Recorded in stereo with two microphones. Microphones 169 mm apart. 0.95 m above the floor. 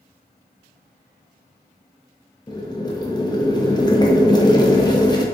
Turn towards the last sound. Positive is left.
turn(degrees=25)  # may be behind; listen again after turning